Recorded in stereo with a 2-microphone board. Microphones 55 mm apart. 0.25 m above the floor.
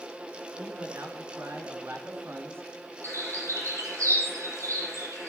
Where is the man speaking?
60° right (ahead or behind), 4 m; by 2.9 s 50° right (ahead or behind), 3 m.